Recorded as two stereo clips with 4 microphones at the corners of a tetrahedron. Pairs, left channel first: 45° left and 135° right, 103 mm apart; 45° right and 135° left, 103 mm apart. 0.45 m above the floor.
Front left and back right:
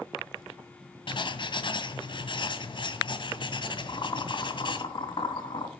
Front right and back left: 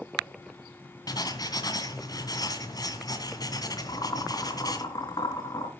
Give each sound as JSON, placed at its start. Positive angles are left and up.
{"t": 1.1, "sound": "writing", "azimuth_deg": 5, "distance_m": 2.0}
{"t": 3.9, "sound": "boiling", "azimuth_deg": 5, "distance_m": 3.0}